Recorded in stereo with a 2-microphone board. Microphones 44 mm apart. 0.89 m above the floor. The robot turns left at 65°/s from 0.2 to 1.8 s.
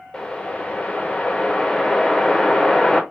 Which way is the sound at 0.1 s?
20° left (ahead or behind).